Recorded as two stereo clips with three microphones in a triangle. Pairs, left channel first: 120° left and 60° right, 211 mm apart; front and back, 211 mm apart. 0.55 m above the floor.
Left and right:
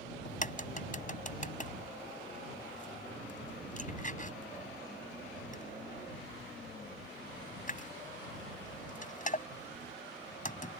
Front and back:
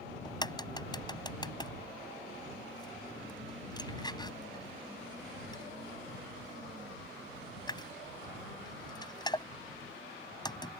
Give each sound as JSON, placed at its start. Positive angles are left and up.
{"t": 0.2, "sound": "a crack", "azimuth_deg": 70}